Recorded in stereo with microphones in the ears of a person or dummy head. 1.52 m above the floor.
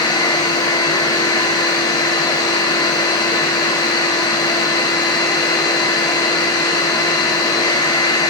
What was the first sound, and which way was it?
A machine running, 20° left (ahead or behind).